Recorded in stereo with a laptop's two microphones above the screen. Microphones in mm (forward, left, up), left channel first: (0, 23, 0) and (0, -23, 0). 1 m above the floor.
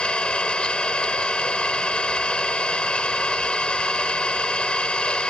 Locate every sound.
0.0 s an engine running: 25° left (ahead or behind)